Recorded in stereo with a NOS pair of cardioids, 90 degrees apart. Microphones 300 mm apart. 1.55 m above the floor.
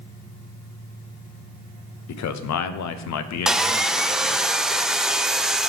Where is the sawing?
Straight ahead, 0.5 m.